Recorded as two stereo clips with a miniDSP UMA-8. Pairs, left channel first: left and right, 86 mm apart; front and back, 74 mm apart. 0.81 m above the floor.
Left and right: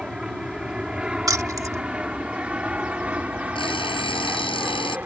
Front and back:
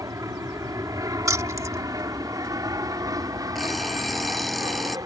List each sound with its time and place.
0.0 s an aircraft: 170° right; by 5.1 s 160° right
1.3 s keys jangling: 135° right
3.5 s an alarm clock: 85° left